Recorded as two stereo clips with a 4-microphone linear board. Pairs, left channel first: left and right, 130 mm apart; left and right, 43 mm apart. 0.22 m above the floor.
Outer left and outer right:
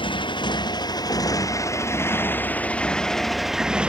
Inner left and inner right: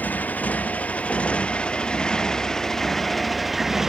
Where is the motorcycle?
40° left (ahead or behind); by 3.9 s 10° right (ahead or behind).